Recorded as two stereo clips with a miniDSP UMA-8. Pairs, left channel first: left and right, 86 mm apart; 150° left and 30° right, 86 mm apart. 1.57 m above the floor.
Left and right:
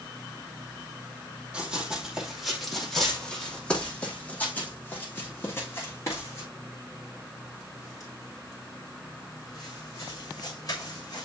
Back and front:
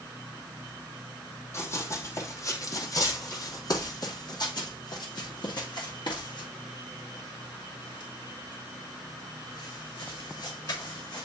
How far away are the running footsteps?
About 2.5 m.